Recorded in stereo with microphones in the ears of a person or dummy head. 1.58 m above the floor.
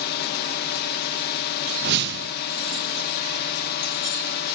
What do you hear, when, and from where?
0.0 s a drone: 55° left (ahead or behind)
1.8 s a whoosh: 55° right (ahead or behind)